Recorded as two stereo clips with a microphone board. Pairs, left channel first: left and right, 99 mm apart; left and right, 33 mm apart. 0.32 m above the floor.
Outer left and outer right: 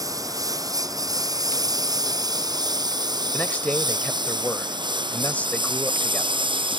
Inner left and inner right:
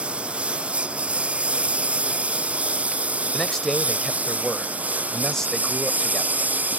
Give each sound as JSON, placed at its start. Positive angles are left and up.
{"t": 0.0, "sound": "a lawn mower", "side_deg": -35}
{"t": 3.3, "sound": "a man speaking", "side_deg": 15}